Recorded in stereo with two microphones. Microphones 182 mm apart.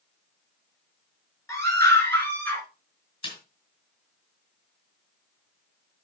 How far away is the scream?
About 4.5 m.